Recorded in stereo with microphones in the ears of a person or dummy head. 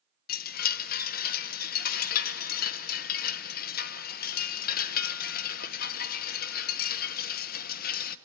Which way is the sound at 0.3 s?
60° left (ahead or behind).